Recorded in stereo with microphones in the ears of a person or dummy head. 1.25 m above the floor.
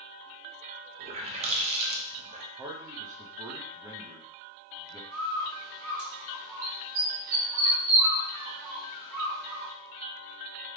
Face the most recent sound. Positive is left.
turn(degrees=-50)  # may be behind; listen again after turning